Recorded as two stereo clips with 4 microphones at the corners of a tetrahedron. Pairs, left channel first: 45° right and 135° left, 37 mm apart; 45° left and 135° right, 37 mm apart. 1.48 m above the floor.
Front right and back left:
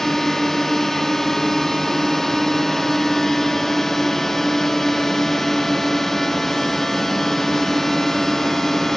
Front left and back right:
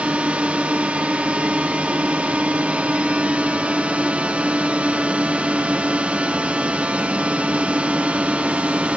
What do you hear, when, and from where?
0.0 s a drone: 120° right